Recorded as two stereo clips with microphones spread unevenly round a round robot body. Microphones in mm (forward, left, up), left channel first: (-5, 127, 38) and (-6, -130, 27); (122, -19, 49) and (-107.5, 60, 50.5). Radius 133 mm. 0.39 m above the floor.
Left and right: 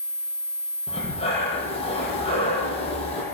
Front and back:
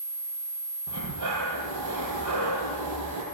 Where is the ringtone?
I don't hear a ringtone.